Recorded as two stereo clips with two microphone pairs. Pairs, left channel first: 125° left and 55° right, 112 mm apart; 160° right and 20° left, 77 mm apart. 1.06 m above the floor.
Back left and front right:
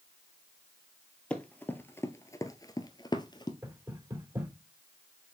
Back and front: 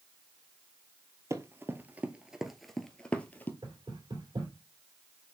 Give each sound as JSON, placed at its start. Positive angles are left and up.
{"t": 1.3, "sound": "running footsteps", "azimuth_deg": 50, "distance_m": 1.3}
{"t": 3.6, "sound": "knocking", "azimuth_deg": 10, "distance_m": 3.0}